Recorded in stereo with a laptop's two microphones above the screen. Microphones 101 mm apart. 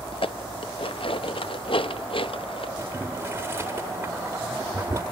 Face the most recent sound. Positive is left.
turn(degrees=-25)  # may be behind; listen again after turning